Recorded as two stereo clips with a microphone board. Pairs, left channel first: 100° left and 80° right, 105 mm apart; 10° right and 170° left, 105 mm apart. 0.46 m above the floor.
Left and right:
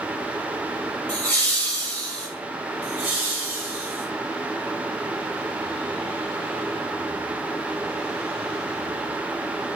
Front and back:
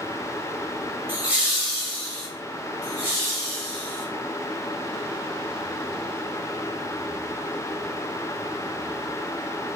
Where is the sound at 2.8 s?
130° right, 1.4 m.